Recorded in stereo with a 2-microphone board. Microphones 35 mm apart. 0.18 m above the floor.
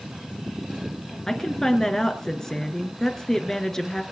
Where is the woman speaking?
20° left (ahead or behind), 3 m.